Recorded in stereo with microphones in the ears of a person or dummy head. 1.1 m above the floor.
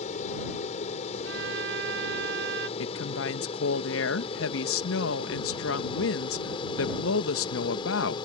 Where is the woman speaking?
65° left (ahead or behind).